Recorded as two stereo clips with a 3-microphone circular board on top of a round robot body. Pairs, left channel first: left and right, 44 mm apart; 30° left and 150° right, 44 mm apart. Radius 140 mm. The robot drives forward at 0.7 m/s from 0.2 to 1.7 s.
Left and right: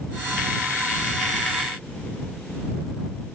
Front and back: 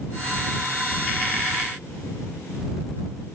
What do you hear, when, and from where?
Only background noise.